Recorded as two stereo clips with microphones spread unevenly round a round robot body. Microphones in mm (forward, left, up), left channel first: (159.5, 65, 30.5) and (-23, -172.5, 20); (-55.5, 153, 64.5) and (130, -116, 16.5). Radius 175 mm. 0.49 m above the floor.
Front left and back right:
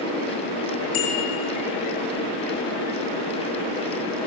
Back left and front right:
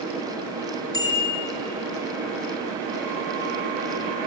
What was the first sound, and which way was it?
A bicycle bell, 45° left.